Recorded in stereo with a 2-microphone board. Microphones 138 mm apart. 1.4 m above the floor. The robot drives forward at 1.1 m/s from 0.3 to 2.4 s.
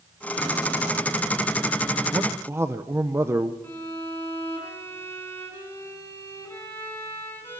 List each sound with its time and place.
2.1 s a man speaking: 30° right (ahead or behind), 0.7 m; by 3.5 s 20° right (ahead or behind), 1.0 m
3.6 s a violin: 15° left (ahead or behind), 7 m